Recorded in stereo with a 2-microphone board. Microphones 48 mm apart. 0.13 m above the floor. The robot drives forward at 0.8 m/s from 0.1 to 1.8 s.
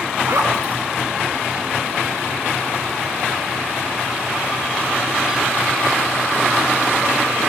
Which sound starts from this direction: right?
A zipper, at 0.3 s.